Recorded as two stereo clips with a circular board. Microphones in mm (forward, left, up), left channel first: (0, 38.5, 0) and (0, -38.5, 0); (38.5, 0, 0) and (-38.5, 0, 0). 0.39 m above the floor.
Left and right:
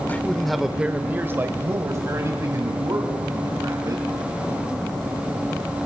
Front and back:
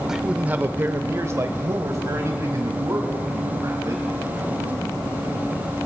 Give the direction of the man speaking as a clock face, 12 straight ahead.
9 o'clock.